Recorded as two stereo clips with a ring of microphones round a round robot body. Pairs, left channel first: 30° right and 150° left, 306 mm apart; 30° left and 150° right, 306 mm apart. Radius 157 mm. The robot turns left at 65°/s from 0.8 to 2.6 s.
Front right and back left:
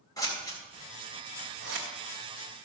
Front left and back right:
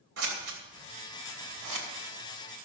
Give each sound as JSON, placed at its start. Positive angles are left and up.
{"t": 0.2, "sound": "scissors", "azimuth_deg": -110, "distance_m": 2.5}